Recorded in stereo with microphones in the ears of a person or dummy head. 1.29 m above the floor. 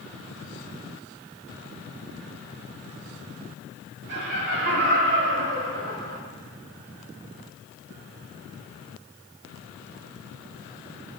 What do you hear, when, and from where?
4.1 s laughter: 65° right (ahead or behind), 3 m